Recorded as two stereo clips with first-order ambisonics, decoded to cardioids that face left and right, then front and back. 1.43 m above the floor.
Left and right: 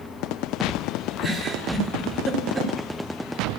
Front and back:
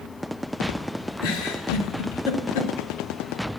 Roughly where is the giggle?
Ahead.